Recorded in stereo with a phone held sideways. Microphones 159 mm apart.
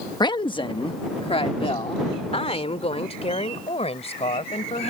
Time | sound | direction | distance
0.2 | a woman speaking | 25° left (ahead or behind) | ?